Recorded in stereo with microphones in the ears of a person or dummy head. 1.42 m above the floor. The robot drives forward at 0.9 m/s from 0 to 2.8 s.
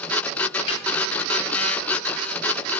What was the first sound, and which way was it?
A snare drum, 30° left (ahead or behind).